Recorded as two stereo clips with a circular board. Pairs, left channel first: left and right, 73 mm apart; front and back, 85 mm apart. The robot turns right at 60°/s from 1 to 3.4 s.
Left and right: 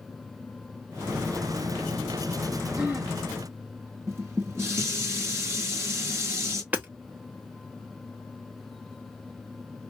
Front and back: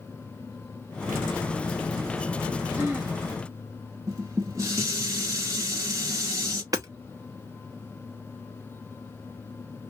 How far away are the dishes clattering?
About 1.3 m.